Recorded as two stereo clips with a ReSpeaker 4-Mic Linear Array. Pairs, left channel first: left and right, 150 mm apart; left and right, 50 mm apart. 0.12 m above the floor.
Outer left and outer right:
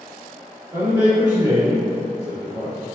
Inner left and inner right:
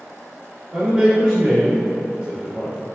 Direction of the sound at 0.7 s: 10° right (ahead or behind).